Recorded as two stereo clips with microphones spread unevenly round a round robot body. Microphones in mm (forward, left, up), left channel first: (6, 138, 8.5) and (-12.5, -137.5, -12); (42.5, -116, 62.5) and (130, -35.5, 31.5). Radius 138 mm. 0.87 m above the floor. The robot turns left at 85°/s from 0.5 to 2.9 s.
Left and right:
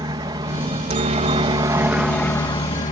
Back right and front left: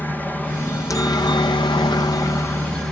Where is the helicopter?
50° right; by 2.9 s 110° left.